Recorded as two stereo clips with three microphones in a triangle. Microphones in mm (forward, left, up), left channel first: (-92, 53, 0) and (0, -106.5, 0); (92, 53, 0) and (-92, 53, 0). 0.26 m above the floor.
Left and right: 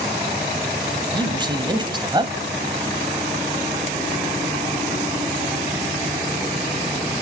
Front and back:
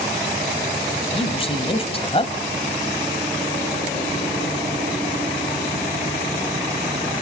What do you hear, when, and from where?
1.1 s a man speaking: 20° right, 1.8 m